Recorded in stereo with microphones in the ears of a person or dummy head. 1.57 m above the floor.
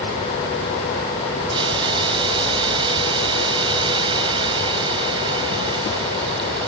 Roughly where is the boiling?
Right.